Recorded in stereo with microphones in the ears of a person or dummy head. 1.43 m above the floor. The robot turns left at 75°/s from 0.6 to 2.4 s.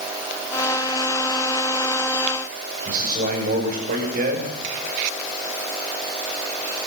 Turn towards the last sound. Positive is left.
turn(degrees=-50)  # may be behind; listen again after turning